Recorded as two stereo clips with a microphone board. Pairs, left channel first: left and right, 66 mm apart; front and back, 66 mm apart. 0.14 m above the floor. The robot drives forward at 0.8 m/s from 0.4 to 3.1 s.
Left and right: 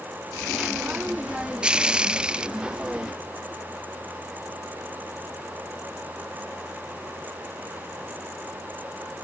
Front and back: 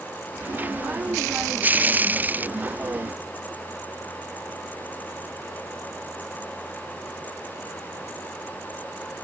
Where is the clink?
No clink in this recording.